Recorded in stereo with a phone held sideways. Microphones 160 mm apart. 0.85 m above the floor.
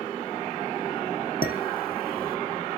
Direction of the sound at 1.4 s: 80° left.